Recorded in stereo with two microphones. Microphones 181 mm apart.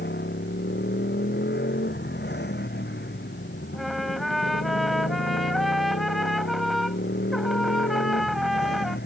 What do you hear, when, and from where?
0.0 s a motorcycle: 70° left (ahead or behind)
3.7 s a trumpet: centre (ahead or behind)